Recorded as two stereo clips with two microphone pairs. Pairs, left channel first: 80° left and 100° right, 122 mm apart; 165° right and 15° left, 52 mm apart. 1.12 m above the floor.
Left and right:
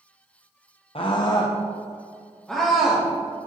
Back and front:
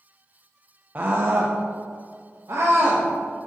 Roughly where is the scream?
Ahead left.